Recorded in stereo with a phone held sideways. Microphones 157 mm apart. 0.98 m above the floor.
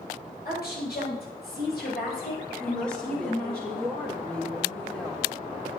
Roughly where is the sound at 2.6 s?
Centre.